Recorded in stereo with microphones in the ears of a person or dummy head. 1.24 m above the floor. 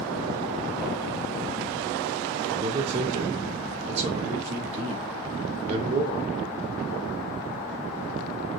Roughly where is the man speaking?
Right.